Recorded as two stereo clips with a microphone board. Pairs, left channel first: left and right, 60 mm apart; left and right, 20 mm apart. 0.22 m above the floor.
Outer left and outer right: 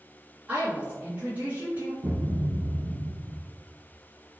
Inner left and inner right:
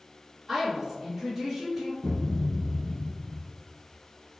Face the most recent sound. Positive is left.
turn(degrees=-45)  # may be behind; listen again after turning